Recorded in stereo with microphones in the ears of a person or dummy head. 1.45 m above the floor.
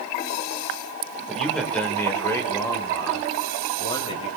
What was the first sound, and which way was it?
A man speaking, centre (ahead or behind).